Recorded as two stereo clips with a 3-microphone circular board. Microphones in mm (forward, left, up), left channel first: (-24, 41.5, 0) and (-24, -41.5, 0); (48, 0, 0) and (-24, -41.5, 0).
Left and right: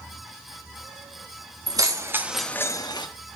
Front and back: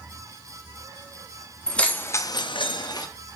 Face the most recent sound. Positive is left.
turn(degrees=65)